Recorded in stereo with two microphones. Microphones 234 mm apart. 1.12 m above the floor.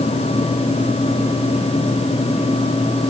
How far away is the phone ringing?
I don't hear a phone ringing.